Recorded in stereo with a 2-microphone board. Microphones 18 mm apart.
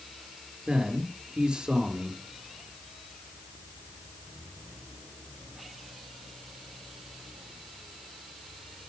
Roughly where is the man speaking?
Right.